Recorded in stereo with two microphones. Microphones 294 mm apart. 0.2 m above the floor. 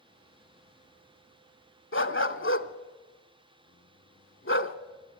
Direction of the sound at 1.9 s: 45° left (ahead or behind).